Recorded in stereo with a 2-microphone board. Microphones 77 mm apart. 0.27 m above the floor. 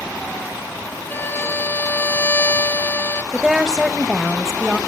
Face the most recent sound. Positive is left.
turn(degrees=-10)  # may be behind; listen again after turning